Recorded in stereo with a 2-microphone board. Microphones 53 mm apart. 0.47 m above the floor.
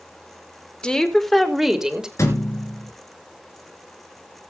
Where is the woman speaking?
15° left (ahead or behind), 1.6 m; by 2.1 s 10° right (ahead or behind), 2 m.